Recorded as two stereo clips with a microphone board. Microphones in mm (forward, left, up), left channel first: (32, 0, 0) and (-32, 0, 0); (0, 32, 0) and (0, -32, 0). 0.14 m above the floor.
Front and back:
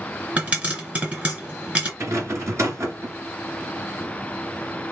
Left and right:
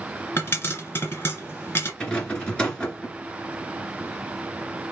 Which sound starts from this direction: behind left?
A pop, at 0.4 s.